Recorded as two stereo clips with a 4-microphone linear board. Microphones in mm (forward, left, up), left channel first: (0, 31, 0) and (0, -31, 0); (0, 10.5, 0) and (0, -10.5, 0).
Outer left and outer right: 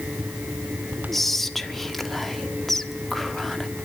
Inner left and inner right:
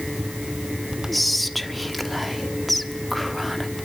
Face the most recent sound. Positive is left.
turn(degrees=5)  # may be behind; listen again after turning